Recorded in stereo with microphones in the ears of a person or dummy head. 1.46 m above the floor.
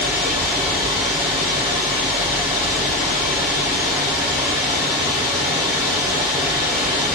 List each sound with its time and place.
0.0 s running water: 25° right (ahead or behind), 1.9 m